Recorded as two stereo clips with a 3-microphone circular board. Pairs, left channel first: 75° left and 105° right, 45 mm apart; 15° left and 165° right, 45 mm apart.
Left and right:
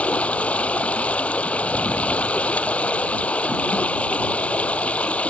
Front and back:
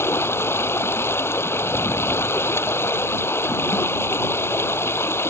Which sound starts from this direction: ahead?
Running water, at 0.0 s.